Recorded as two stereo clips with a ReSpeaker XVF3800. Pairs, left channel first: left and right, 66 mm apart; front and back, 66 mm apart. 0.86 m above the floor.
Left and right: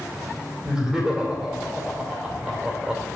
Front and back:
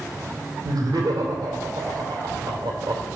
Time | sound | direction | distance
0.6 | laughter | 165° right | 2.5 m